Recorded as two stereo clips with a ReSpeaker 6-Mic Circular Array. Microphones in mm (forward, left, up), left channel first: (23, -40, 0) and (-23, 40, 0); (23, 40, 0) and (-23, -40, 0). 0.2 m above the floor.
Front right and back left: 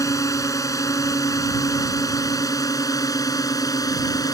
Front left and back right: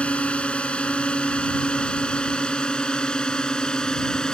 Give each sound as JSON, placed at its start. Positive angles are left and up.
{"t": 0.0, "sound": "a drone", "azimuth_deg": -15}